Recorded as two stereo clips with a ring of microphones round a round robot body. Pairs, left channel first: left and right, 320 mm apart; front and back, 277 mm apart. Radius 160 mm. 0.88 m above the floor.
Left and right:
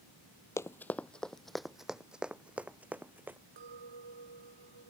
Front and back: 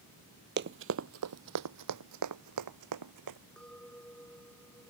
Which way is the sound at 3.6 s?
85° right.